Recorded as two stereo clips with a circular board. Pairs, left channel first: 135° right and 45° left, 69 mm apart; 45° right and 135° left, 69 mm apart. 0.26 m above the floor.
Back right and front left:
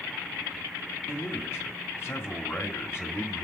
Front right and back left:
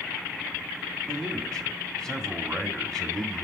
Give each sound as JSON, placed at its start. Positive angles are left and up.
{"t": 1.1, "sound": "a man speaking", "azimuth_deg": -120, "distance_m": 2.0}